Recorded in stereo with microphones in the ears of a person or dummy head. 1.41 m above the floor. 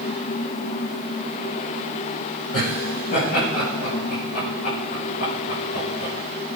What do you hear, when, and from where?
2.5 s laughter: 50° left (ahead or behind), 6.5 m; by 6.1 s 55° left (ahead or behind), 4 m